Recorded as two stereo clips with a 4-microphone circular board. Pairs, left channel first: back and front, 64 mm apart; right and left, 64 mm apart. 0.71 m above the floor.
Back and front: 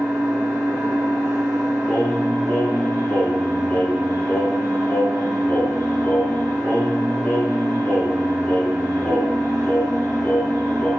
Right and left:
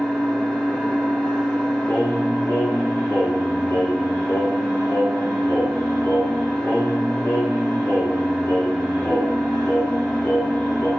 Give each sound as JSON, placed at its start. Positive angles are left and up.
{"t": 0.0, "sound": "an engine running", "azimuth_deg": -15, "distance_m": 1.3}
{"t": 1.9, "sound": "singing", "azimuth_deg": -120, "distance_m": 1.5}